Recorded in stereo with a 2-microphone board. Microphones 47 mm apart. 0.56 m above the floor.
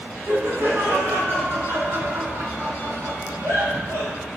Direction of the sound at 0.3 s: 55° right (ahead or behind).